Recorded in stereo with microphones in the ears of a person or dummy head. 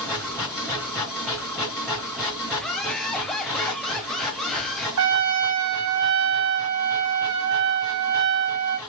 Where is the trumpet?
70° right (ahead or behind), 2.0 m.